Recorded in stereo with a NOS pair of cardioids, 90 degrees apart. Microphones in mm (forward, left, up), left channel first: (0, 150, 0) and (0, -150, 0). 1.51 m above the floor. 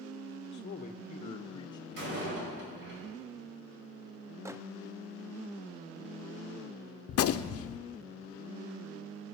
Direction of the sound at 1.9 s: 40° right.